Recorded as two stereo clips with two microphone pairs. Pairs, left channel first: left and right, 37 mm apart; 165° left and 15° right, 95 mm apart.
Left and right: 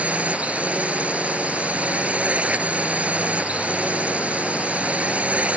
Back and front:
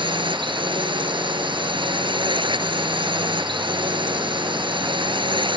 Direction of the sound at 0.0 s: 40° right.